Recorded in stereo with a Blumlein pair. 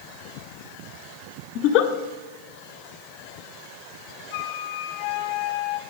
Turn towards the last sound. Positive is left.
turn(degrees=50)